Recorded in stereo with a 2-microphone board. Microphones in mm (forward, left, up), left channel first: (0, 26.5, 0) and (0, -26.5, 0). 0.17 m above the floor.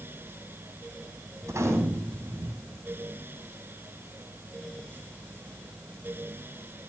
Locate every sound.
1.4 s a gunshot: 70° right (ahead or behind), 5.5 m